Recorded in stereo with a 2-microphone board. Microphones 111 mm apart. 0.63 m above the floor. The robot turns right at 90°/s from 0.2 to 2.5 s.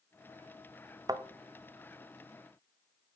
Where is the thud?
35° right (ahead or behind), 0.5 m; by 1.2 s 45° right (ahead or behind), 0.5 m.